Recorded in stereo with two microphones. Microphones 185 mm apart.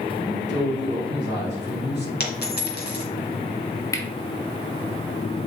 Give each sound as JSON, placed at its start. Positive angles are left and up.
{"t": 0.2, "sound": "a man speaking", "side_deg": 75, "distance_m": 3.5}
{"t": 2.2, "sound": "a dropped coin", "side_deg": 65, "distance_m": 1.9}
{"t": 3.9, "sound": "cutlery clinking", "side_deg": 15, "distance_m": 1.1}